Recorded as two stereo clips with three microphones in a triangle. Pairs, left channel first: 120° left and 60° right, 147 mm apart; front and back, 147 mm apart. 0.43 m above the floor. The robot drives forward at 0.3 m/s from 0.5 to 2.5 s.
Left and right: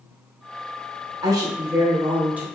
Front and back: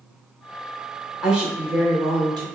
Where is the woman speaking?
95° right, 0.8 m; by 2.5 s 135° right, 0.9 m.